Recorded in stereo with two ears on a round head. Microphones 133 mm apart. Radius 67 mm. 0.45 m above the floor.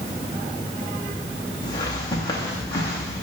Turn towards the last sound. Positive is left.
turn(degrees=25)  # may be behind; listen again after turning